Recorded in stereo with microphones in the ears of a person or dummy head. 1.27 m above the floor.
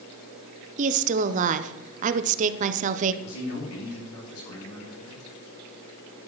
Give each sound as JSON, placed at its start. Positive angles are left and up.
{"t": 0.8, "sound": "a woman speaking", "side_deg": -40, "distance_m": 0.7}
{"t": 3.2, "sound": "a man speaking", "side_deg": 80, "distance_m": 3.5}